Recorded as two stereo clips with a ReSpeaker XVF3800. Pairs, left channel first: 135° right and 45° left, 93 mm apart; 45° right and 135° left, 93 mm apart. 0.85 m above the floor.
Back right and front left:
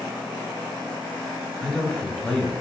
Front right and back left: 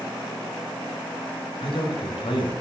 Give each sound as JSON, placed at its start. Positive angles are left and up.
{"t": 1.6, "sound": "a man speaking", "azimuth_deg": -55, "distance_m": 1.0}